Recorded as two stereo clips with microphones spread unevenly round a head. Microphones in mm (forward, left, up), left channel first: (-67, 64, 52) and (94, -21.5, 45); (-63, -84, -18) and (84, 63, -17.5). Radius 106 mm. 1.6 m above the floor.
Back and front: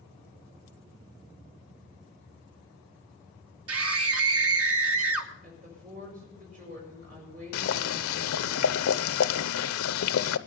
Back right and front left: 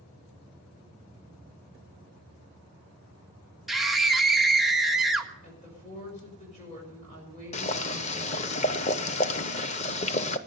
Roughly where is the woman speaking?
Right.